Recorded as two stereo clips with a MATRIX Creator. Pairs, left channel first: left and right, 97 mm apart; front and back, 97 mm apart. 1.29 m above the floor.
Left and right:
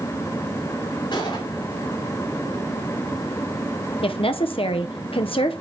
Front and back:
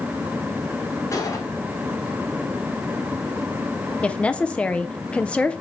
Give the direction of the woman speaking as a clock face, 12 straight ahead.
9 o'clock.